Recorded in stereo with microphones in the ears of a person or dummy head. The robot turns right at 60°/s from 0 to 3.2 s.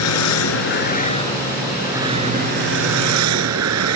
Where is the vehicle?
80° left; by 4.0 s 85° right.